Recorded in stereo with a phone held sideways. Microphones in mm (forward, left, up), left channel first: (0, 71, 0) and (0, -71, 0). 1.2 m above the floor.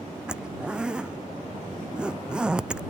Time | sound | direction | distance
0.3 | a zipper | 5° right (ahead or behind) | ?